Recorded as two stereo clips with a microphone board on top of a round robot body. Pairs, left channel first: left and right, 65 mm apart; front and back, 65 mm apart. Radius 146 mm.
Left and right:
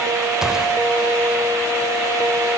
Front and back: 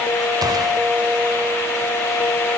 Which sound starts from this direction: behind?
A gunshot, at 0.4 s.